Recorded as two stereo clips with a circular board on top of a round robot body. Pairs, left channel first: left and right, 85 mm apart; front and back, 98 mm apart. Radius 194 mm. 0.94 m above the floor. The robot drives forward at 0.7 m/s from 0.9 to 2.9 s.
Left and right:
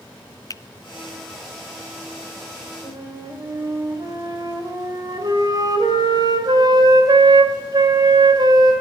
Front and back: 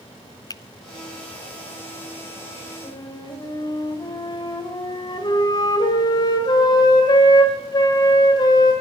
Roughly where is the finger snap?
Ahead left.